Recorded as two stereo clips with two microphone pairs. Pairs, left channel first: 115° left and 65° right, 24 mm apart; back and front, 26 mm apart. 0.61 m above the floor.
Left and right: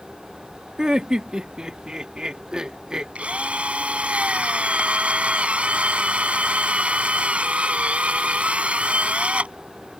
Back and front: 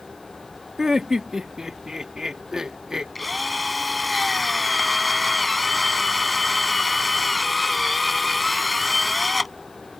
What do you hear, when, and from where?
0.8 s laughter: 45° right
3.1 s a drill: 90° right